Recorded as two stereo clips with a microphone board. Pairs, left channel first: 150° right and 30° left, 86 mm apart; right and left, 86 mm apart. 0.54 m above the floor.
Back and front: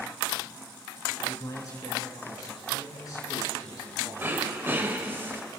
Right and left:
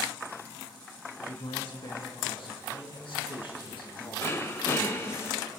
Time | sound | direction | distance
1.3 | a man speaking | 105° right | 6 m
4.2 | throat clearing | 35° right | 1.8 m